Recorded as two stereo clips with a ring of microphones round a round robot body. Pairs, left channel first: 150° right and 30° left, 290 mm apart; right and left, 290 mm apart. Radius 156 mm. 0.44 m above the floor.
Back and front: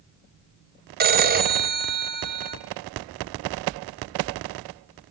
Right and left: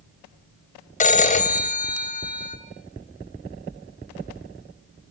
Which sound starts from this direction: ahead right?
A phone ringing, at 1.0 s.